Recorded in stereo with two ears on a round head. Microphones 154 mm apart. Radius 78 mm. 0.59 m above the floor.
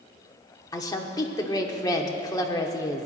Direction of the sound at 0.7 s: 20° left (ahead or behind).